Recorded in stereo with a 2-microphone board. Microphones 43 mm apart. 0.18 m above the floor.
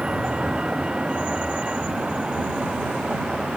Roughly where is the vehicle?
Centre.